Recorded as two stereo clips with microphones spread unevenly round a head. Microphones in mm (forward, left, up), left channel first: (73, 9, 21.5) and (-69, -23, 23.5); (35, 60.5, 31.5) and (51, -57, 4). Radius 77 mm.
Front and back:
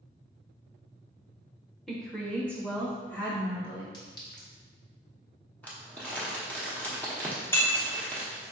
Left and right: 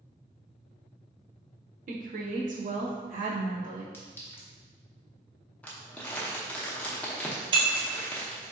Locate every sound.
1.9 s a woman speaking: 75° right, 0.8 m; by 3.8 s 65° right, 2 m
3.9 s a clink: 60° left, 1.0 m
5.6 s crumpling: 85° left, 0.8 m
7.5 s breaking glass: 50° right, 0.8 m